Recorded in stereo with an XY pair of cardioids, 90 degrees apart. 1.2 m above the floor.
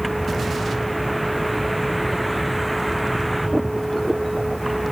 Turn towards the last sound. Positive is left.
turn(degrees=-10)